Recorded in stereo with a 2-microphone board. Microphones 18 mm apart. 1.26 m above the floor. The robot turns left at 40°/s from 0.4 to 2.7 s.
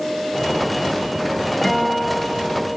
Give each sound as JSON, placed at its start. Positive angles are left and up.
{"t": 1.6, "sound": "a guitar", "azimuth_deg": 45, "distance_m": 1.2}